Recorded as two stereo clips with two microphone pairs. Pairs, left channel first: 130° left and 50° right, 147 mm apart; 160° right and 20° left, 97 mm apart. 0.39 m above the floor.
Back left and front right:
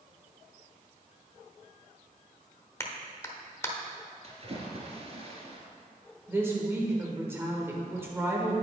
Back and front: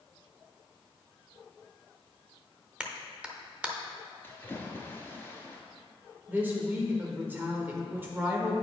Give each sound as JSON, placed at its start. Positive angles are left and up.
{"t": 2.8, "sound": "a clap", "azimuth_deg": 80, "distance_m": 0.8}
{"t": 4.2, "sound": "a splash", "azimuth_deg": -90, "distance_m": 1.6}
{"t": 6.3, "sound": "a woman speaking", "azimuth_deg": -10, "distance_m": 1.4}